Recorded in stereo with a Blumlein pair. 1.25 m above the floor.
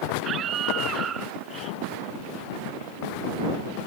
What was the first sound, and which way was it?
A scream, 30° right.